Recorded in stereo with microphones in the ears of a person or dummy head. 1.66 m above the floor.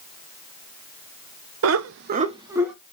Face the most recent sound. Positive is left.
turn(degrees=-5)  # may be behind; listen again after turning